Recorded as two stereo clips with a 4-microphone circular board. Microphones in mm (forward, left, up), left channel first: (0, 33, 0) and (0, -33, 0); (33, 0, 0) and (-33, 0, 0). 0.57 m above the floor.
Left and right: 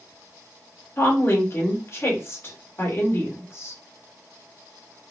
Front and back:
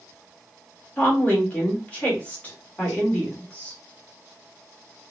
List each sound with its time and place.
1.0 s a woman speaking: 55° left, 1.5 m